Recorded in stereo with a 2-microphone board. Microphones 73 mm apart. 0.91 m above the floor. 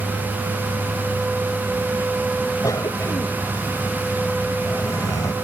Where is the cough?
55° left (ahead or behind).